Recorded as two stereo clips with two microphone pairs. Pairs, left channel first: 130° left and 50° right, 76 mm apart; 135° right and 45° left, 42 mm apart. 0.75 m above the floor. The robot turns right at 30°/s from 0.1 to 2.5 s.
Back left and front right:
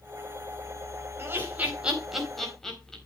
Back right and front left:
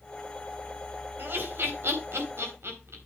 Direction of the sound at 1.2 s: 10° left.